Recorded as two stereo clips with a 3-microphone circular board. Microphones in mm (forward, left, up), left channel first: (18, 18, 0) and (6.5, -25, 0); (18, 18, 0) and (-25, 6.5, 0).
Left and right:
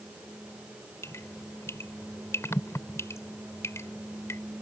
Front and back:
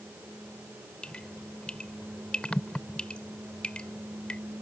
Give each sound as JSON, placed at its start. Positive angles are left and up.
{"t": 1.0, "sound": "dripping", "azimuth_deg": 80}